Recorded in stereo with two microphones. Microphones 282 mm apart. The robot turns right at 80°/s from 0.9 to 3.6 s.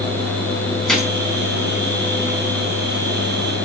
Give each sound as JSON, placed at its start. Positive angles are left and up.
{"t": 0.9, "sound": "a gunshot", "side_deg": 0, "distance_m": 4.0}